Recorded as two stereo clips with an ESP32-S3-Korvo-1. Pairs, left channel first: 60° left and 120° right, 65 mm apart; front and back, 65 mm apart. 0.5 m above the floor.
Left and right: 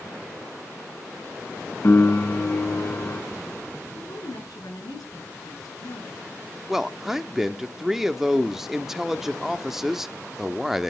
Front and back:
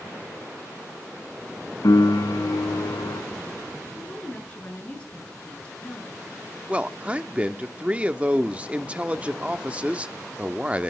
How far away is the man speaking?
About 0.7 m.